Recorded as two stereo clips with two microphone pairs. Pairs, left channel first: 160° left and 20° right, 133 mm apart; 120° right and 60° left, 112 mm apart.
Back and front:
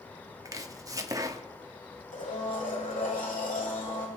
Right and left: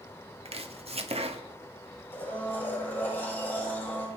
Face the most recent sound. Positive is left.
turn(degrees=165)